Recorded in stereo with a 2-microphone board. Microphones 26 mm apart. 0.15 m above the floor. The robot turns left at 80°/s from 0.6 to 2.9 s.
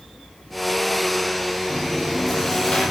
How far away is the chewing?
About 4.5 m.